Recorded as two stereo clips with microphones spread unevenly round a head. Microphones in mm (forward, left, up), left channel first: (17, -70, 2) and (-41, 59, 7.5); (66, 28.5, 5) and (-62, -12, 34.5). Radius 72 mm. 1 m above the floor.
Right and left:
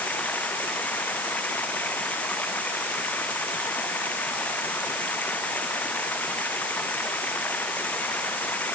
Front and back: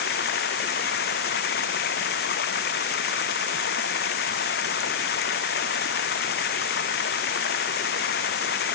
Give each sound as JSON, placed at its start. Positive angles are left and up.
{"t": 0.0, "sound": "running water", "azimuth_deg": 15}